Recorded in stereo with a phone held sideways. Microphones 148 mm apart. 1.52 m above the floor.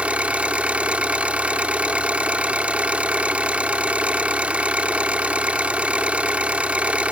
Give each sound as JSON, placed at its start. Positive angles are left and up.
{"t": 0.0, "sound": "an engine running", "side_deg": -10}